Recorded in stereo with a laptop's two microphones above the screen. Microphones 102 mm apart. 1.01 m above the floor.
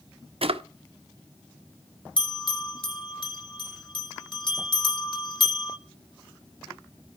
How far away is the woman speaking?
I don't hear a woman speaking.